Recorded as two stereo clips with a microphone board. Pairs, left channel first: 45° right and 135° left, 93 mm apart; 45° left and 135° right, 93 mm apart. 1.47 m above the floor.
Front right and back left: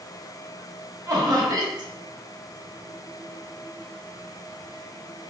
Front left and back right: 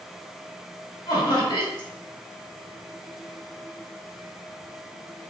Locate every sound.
1.1 s laughter: 90° left, 1.4 m